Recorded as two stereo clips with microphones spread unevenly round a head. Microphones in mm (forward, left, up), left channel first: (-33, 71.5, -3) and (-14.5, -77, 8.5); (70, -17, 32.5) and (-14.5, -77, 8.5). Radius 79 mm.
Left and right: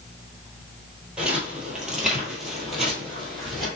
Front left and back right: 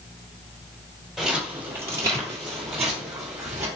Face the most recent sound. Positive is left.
turn(degrees=-170)